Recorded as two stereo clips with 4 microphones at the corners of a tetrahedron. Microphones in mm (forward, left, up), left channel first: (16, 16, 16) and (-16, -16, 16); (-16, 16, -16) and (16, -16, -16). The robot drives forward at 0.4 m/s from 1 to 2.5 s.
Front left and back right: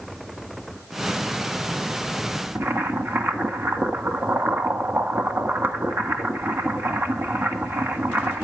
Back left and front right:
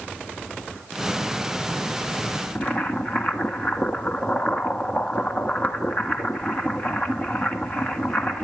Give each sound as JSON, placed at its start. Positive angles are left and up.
{"t": 2.5, "sound": "boiling", "azimuth_deg": -170, "distance_m": 1.3}